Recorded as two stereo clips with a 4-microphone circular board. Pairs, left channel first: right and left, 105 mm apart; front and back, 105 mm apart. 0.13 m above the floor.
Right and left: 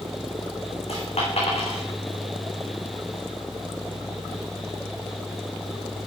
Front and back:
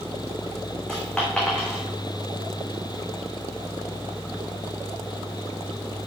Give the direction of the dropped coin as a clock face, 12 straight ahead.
3 o'clock.